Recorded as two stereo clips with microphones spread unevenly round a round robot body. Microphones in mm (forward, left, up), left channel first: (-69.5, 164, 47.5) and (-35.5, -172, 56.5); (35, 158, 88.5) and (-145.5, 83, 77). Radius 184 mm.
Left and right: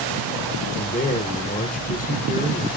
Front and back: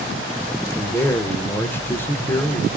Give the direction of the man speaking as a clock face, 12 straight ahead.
9 o'clock.